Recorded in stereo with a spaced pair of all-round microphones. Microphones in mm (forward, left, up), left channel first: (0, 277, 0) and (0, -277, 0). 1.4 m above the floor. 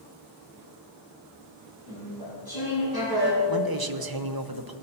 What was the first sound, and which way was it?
Chewing, 40° right (ahead or behind).